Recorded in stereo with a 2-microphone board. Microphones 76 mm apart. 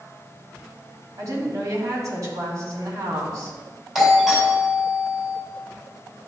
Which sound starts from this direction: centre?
A doorbell, at 4.0 s.